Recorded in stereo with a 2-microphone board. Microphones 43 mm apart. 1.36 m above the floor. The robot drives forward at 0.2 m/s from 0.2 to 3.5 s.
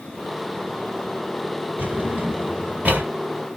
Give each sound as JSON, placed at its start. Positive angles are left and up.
{"t": 1.8, "sound": "a drawer", "side_deg": -40, "distance_m": 1.4}